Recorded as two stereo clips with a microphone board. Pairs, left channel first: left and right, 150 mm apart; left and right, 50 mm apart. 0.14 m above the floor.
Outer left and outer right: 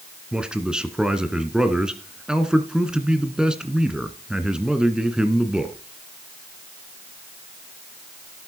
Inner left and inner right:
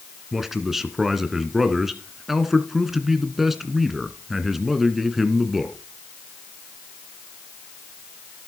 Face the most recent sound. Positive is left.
turn(degrees=-5)  # may be behind; listen again after turning